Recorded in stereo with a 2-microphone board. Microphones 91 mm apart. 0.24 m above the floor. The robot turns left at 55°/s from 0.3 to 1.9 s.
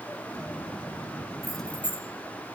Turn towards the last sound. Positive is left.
turn(degrees=25)  # may be behind; listen again after turning